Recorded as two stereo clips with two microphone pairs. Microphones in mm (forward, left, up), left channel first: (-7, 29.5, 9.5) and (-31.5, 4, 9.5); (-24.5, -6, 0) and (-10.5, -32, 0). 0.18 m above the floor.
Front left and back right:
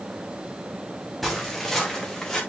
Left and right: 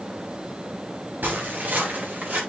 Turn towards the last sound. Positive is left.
turn(degrees=-30)